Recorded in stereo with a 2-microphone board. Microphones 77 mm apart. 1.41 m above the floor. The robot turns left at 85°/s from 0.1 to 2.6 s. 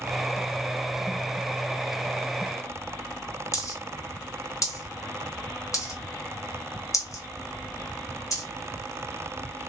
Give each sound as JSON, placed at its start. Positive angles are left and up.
{"t": 3.5, "sound": "a dropped coin", "side_deg": 40, "distance_m": 1.2}